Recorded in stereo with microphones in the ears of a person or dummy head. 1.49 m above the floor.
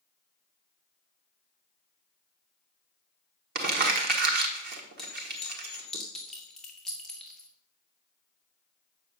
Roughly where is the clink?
Centre.